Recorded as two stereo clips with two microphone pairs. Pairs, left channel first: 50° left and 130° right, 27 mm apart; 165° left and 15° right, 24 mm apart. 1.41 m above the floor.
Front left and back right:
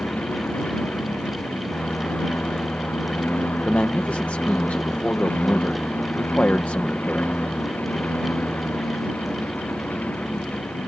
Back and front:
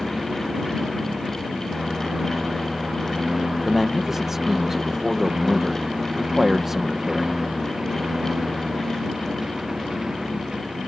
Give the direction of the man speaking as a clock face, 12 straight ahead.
10 o'clock.